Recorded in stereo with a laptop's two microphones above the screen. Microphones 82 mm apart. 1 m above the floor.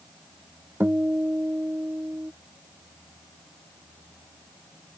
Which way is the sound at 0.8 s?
20° right (ahead or behind).